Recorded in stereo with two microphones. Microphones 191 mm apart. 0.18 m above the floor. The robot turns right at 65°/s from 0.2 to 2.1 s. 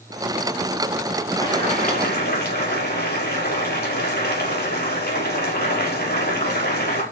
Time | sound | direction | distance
1.4 | boiling | 15° left | 5 m